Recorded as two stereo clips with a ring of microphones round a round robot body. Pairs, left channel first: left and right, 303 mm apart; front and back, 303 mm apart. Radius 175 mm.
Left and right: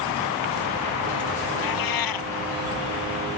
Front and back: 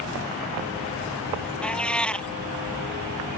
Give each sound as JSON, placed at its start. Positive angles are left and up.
{"t": 1.6, "sound": "a cat meowing", "azimuth_deg": 85}